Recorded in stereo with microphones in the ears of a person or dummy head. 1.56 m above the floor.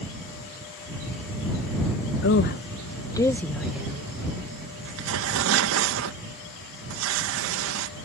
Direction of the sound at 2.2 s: 60° left (ahead or behind).